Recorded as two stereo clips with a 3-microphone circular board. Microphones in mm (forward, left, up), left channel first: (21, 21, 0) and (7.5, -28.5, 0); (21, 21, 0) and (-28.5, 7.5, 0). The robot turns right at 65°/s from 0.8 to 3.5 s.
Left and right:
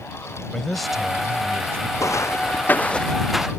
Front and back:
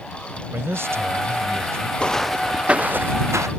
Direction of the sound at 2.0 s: 85° left.